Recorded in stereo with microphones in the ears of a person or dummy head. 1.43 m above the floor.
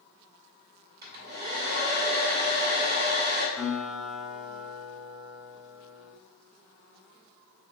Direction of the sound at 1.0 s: 45° right (ahead or behind).